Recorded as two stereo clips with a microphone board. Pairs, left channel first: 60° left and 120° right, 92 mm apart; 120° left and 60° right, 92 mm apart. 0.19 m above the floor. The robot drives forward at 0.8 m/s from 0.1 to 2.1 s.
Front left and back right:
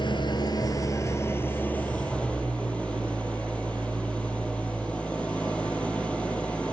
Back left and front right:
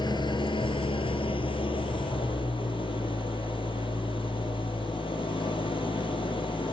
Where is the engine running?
90° left, 1.5 m; by 6.7 s 140° left, 2 m.